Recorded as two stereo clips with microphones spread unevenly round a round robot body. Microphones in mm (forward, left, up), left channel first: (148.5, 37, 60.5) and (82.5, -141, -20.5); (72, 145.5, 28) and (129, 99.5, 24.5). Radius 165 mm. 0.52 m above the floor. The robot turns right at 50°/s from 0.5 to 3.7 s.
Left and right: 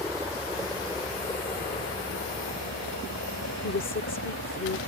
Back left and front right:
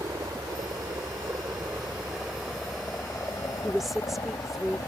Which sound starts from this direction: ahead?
A helicopter, at 0.0 s.